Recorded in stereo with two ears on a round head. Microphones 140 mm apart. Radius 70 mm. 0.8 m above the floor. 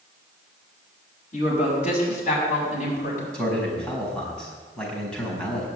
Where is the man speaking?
5° left (ahead or behind), 5 m.